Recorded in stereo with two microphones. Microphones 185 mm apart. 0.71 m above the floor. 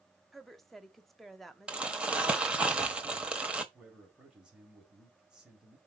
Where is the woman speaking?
Centre (ahead or behind), 1.0 m.